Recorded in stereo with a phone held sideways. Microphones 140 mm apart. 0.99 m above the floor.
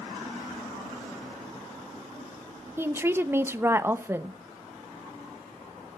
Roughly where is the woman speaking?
Centre.